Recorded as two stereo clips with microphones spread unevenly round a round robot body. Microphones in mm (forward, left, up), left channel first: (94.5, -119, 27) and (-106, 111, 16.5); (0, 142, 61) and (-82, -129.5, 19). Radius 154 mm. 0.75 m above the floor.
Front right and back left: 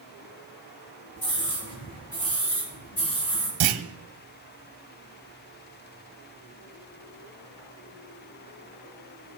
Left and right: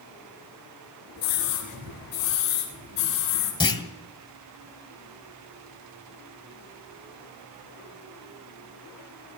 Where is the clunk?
150° left, 1.5 m.